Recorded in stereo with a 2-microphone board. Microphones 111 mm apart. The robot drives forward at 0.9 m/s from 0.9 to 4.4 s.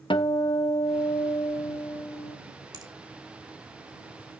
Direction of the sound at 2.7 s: 35° right (ahead or behind).